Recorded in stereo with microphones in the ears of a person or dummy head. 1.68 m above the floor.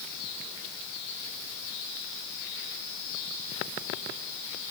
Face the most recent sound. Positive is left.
No sound to turn to.